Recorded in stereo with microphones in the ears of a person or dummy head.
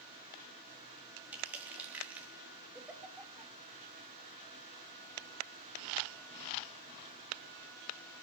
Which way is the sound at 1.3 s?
5° right (ahead or behind).